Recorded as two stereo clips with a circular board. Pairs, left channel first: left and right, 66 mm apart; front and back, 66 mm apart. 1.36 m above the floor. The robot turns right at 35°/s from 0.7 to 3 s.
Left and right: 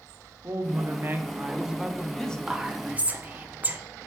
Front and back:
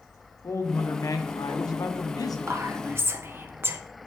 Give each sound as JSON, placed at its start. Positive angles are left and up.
{"t": 0.4, "sound": "a woman speaking", "azimuth_deg": -45, "distance_m": 0.5}
{"t": 2.5, "sound": "whispering", "azimuth_deg": -165, "distance_m": 0.6}